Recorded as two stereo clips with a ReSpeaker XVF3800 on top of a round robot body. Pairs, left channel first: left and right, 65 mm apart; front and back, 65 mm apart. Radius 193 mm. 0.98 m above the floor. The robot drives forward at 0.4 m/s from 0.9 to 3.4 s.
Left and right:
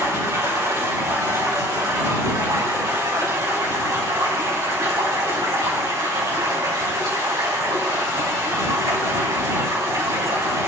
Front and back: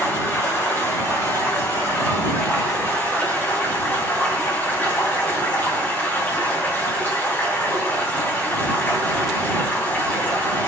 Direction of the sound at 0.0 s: 50° right.